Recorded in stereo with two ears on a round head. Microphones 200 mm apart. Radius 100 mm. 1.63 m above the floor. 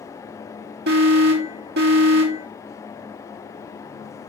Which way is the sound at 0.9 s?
50° right (ahead or behind).